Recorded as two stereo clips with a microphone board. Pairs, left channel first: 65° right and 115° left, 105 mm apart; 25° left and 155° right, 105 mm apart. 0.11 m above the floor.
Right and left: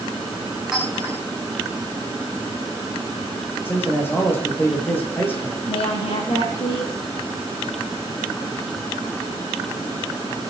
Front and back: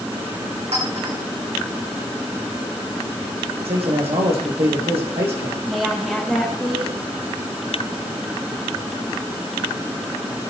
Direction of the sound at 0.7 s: 160° right.